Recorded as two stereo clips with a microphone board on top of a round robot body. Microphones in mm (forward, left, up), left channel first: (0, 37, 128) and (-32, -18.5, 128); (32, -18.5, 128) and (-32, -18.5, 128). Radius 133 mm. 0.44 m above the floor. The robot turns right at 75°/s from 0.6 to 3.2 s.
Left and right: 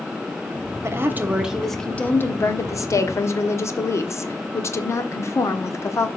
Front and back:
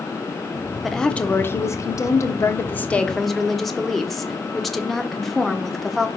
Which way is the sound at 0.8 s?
90° right.